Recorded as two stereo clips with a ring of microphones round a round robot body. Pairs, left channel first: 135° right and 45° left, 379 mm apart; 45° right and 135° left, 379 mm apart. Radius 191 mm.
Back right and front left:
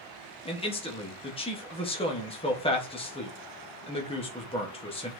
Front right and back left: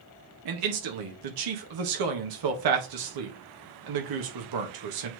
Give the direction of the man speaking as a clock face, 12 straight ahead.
7 o'clock.